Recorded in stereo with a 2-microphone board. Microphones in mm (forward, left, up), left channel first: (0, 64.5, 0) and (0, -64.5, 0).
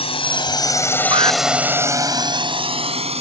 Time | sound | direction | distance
0.0 | a drone | 50° left (ahead or behind) | ?
1.1 | an alarm | 45° right (ahead or behind) | ?